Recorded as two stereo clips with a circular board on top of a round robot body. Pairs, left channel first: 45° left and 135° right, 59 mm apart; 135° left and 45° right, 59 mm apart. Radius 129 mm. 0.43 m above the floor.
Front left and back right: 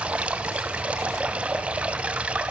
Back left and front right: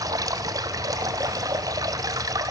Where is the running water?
65° right, 1.0 m.